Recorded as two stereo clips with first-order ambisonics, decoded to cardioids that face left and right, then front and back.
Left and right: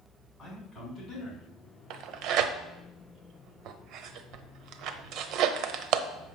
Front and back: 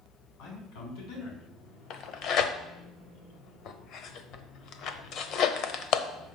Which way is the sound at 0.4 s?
10° left.